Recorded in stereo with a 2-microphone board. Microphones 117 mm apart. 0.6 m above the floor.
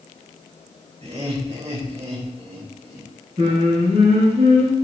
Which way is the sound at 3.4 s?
60° right (ahead or behind).